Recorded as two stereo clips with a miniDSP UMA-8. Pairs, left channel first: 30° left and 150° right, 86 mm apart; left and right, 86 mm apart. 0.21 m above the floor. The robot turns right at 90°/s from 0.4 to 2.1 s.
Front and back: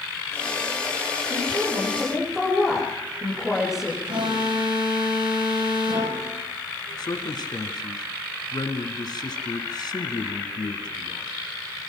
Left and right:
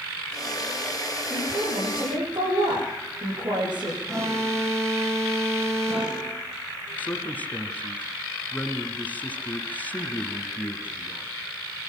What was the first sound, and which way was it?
A woman speaking, 140° right.